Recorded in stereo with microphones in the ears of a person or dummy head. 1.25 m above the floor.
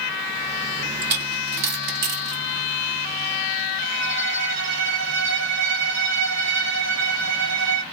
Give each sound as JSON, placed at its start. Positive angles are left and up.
{"t": 1.0, "sound": "a dropped coin", "side_deg": -55, "distance_m": 1.1}
{"t": 3.8, "sound": "a violin", "side_deg": -65, "distance_m": 0.8}